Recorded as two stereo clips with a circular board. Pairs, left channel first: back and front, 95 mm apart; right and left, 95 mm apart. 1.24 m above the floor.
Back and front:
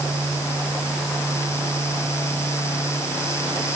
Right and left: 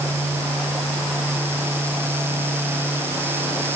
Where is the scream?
I don't hear a scream.